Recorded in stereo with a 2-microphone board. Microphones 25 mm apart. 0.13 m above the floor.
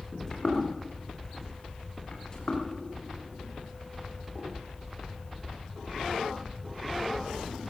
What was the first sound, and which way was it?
Footsteps, 15° left (ahead or behind).